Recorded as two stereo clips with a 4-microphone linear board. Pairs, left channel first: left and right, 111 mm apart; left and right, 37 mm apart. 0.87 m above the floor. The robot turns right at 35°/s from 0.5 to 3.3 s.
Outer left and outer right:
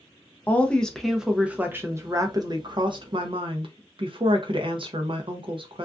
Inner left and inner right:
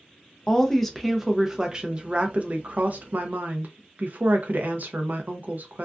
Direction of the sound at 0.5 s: 160° left.